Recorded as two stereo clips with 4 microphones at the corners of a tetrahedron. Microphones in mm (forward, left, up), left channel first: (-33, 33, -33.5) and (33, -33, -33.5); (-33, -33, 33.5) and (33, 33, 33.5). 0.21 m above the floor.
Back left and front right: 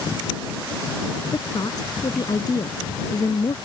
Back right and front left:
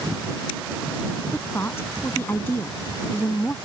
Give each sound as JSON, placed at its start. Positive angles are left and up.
{"t": 1.3, "sound": "a woman speaking", "azimuth_deg": 165}